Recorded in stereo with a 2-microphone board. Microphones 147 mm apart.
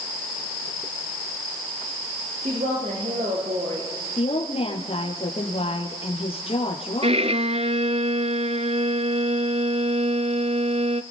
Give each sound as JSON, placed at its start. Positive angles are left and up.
{"t": 2.4, "sound": "a woman speaking", "side_deg": -45, "distance_m": 5.5}
{"t": 4.2, "sound": "a woman speaking", "side_deg": 40, "distance_m": 4.0}
{"t": 7.0, "sound": "a violin", "side_deg": -45, "distance_m": 0.7}